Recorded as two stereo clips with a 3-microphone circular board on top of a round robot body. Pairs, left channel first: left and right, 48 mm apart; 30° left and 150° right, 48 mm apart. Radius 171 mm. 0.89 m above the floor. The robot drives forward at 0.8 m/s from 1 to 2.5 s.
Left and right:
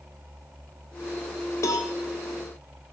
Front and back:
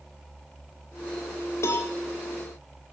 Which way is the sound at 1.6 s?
60° left.